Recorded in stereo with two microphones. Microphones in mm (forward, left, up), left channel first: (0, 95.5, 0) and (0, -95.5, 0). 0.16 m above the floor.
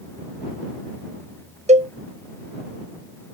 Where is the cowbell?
35° right (ahead or behind).